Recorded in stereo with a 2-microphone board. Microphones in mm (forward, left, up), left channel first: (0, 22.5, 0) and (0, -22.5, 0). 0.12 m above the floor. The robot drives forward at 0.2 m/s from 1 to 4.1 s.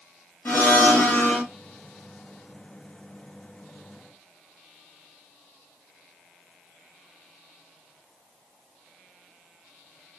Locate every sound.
0.5 s a blender: 45° left (ahead or behind), 1.1 m